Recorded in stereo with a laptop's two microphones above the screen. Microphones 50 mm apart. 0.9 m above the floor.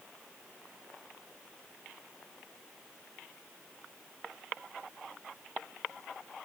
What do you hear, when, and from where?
Only background noise.